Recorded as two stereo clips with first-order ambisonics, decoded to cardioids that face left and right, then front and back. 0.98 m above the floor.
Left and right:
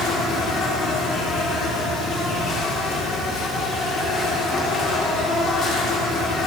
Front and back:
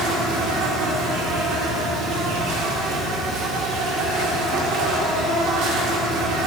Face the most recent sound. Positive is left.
turn(degrees=165)